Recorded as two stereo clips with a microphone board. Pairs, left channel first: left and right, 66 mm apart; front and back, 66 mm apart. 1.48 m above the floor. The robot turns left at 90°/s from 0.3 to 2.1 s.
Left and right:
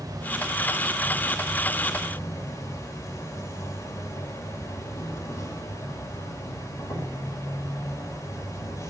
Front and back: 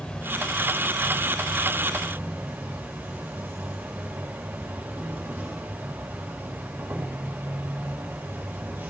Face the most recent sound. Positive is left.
turn(degrees=120)